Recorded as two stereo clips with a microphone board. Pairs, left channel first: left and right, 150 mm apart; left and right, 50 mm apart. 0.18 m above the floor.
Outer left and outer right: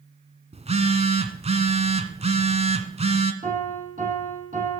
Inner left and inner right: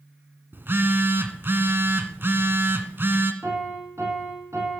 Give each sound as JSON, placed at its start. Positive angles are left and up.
{"t": 0.5, "sound": "a phone buzzing", "side_deg": -45, "distance_m": 1.5}
{"t": 3.4, "sound": "a piano", "side_deg": -60, "distance_m": 7.0}